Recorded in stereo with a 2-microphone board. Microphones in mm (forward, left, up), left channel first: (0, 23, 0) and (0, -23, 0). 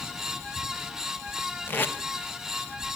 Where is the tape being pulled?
45° left (ahead or behind), 1.2 m.